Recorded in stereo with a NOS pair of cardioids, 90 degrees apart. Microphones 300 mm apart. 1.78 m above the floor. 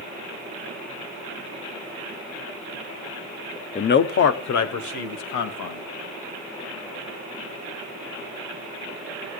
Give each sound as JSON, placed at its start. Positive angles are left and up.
{"t": 3.8, "sound": "a man speaking", "azimuth_deg": 25, "distance_m": 0.8}